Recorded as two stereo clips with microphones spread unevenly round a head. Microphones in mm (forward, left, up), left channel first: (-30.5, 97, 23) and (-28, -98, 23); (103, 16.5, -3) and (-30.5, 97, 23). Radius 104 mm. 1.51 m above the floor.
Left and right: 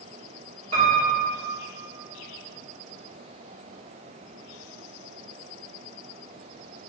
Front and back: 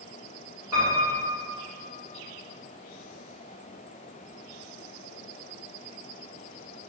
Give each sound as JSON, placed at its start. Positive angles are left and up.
{"t": 0.7, "sound": "a piano", "azimuth_deg": -140, "distance_m": 1.6}